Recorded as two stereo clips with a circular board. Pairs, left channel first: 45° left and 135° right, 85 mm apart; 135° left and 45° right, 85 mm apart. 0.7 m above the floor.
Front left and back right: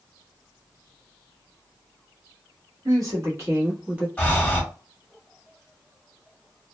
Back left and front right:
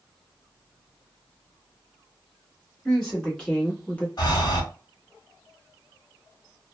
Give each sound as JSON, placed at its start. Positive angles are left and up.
{"t": 2.9, "sound": "a woman speaking", "azimuth_deg": -145, "distance_m": 1.4}
{"t": 4.2, "sound": "breathing", "azimuth_deg": 120, "distance_m": 1.0}